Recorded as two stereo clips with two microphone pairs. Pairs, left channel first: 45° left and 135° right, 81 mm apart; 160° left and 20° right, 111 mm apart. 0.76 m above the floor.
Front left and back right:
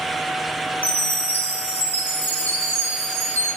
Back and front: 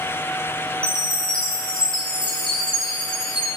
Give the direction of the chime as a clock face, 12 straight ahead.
8 o'clock.